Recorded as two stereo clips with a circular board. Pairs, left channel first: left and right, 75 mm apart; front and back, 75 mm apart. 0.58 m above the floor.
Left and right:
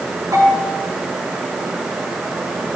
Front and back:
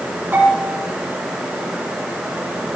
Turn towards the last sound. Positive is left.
turn(degrees=-120)